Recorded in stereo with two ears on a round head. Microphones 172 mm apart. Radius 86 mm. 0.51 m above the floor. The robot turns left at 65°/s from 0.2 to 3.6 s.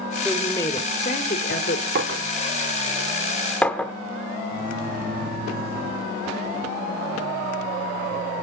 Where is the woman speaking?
Straight behind, 1.3 m; by 1.9 s 75° left, 1.3 m.